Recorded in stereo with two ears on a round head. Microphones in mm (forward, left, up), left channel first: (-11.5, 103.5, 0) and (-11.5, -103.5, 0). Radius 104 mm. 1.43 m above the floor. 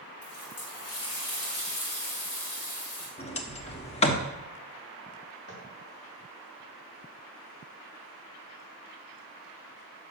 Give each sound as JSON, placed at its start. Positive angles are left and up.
{"t": 0.2, "sound": "a running tap", "side_deg": 75, "distance_m": 4.0}
{"t": 3.2, "sound": "a sliding door", "side_deg": 25, "distance_m": 1.0}
{"t": 5.5, "sound": "tapping", "side_deg": 45, "distance_m": 3.0}